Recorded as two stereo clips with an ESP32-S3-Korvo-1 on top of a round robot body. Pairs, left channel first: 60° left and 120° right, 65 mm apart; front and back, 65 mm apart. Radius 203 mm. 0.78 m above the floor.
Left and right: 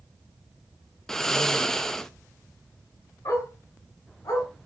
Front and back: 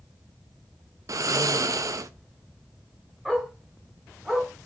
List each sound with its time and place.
1.1 s snoring: 145° left, 0.6 m
3.2 s a dog barking: 100° left, 4 m